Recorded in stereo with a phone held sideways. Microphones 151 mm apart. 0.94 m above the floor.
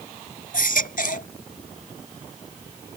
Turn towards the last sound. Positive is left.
turn(degrees=70)  # may be behind; listen again after turning